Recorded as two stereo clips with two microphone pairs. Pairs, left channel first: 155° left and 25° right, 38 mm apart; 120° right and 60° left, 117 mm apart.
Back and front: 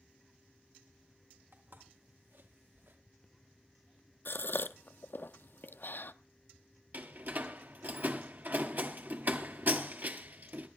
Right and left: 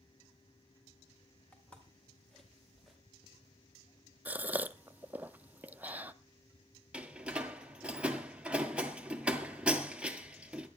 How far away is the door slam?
About 1.8 m.